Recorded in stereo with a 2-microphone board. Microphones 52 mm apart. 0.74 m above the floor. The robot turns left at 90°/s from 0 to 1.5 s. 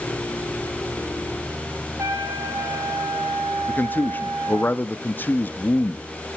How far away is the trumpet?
About 5 m.